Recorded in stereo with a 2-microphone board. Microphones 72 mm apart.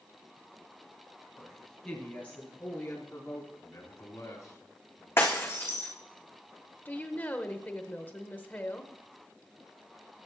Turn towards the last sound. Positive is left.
turn(degrees=25)  # may be behind; listen again after turning